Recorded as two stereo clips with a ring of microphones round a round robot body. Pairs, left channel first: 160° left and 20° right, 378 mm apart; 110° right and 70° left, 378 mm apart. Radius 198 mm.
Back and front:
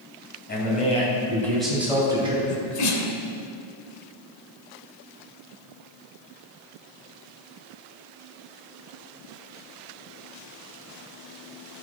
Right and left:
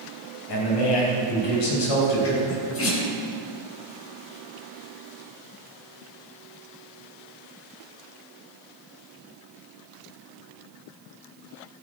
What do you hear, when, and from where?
0.5 s a man speaking: 135° right, 4.5 m; by 2.4 s 95° right, 4.5 m
2.5 s a sneeze: 165° right, 2.5 m